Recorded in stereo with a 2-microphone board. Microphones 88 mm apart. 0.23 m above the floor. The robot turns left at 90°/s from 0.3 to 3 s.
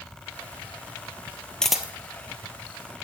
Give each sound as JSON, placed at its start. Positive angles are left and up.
{"t": 1.6, "sound": "a camera shutter", "side_deg": 10, "distance_m": 0.9}